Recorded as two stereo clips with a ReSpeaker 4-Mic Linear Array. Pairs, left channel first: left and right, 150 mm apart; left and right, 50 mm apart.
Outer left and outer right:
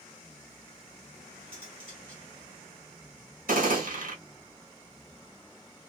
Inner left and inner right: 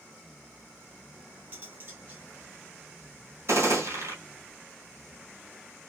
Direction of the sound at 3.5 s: 65° right (ahead or behind).